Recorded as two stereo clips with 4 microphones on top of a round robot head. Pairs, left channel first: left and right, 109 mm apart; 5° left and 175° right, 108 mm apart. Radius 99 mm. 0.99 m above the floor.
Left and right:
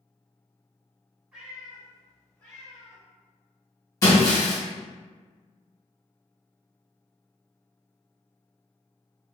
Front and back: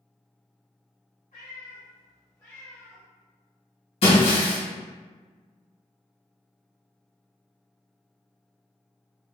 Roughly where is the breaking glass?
Ahead left.